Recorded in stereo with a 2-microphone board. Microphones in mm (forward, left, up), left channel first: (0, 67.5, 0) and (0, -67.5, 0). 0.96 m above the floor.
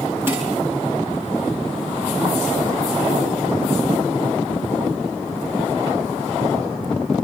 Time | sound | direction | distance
0.3 | dishes clattering | 15° right (ahead or behind) | 8.5 m